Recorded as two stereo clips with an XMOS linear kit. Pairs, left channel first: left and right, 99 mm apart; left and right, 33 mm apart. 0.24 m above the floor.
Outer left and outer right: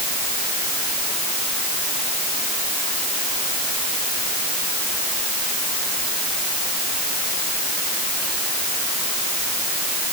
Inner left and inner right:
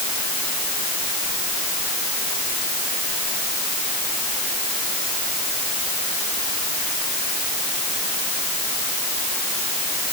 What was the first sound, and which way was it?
Only background noise.